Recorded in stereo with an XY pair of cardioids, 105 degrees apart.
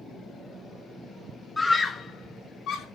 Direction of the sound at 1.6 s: 20° left.